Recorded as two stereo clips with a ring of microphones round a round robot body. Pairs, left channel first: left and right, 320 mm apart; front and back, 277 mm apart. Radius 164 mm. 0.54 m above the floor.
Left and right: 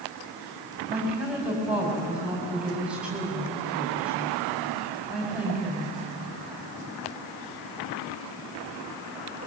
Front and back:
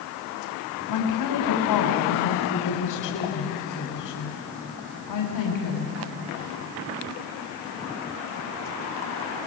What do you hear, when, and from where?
0.9 s a woman speaking: 5° right, 4 m